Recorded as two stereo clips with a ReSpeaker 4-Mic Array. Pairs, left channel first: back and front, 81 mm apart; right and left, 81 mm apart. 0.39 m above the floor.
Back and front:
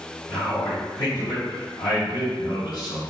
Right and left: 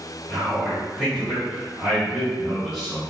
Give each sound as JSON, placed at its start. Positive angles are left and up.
{"t": 0.3, "sound": "a man speaking", "azimuth_deg": 180, "distance_m": 1.9}